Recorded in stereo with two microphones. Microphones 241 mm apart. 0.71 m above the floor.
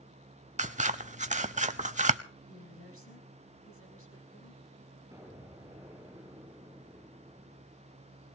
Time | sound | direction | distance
0.6 | scissors | 30° right (ahead or behind) | 0.6 m
2.5 | a woman speaking | 65° left (ahead or behind) | 5.5 m
5.1 | an explosion | 10° right (ahead or behind) | 6 m